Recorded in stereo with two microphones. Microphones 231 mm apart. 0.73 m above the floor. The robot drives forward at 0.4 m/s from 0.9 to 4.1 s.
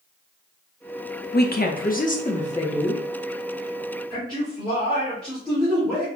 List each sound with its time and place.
1.3 s a woman speaking: 40° left (ahead or behind), 0.7 m; by 3.0 s 25° left (ahead or behind), 1.2 m
4.1 s a man speaking: 5° left (ahead or behind), 2 m